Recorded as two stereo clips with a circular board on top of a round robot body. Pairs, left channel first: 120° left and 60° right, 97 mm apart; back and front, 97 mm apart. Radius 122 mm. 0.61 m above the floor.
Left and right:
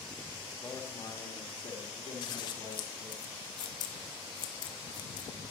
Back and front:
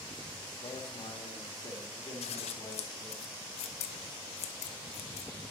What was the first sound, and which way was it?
A man speaking, straight behind.